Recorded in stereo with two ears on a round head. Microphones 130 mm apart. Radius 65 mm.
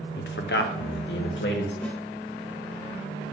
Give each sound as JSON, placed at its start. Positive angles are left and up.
{"t": 0.2, "sound": "a man speaking", "side_deg": 75, "distance_m": 0.7}
{"t": 1.8, "sound": "a snare drum", "side_deg": 10, "distance_m": 1.3}